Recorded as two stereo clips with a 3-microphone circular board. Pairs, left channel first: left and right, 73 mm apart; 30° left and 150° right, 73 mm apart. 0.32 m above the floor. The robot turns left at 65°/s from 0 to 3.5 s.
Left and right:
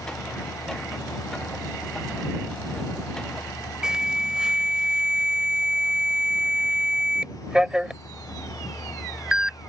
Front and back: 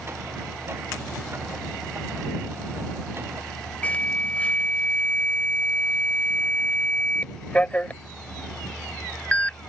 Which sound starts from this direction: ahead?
An alarm, at 3.8 s.